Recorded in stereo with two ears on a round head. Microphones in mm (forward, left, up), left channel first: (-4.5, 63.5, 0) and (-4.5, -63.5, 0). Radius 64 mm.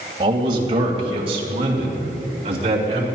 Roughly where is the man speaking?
Right.